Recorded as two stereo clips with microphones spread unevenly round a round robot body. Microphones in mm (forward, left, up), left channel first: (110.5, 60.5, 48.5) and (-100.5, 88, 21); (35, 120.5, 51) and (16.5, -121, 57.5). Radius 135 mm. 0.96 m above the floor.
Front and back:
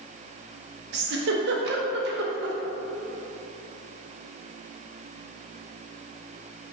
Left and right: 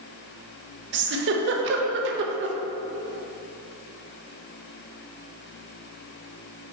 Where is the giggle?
140° right, 0.5 m.